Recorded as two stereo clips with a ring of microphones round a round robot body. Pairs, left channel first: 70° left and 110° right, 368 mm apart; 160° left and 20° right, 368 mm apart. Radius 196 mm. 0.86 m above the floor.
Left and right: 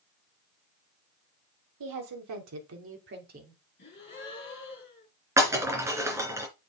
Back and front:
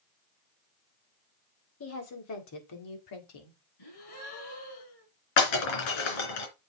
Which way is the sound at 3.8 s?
130° left.